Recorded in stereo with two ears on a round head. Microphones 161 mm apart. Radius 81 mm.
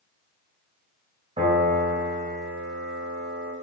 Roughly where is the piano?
Right.